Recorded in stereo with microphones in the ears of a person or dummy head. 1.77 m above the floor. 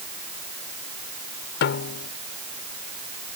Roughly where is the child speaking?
No child speaking in this recording.